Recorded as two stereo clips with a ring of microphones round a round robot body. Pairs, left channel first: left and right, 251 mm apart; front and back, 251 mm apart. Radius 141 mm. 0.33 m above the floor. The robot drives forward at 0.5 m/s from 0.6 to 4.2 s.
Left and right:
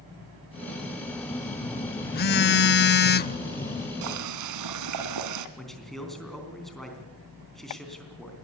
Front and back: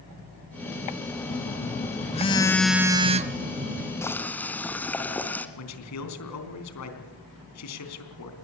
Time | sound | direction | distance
1.3 | a phone buzzing | 30° left | 0.9 m
4.0 | boiling | 80° right | 1.5 m
5.6 | a man speaking | straight ahead | 3.5 m